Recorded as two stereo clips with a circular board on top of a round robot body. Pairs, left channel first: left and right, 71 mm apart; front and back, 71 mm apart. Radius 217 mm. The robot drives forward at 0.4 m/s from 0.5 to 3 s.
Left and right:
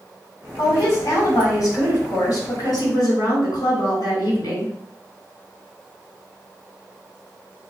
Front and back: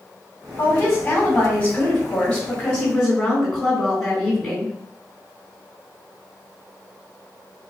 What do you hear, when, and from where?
0.6 s a woman speaking: 60° left, 2.0 m; by 4.7 s 90° left, 1.7 m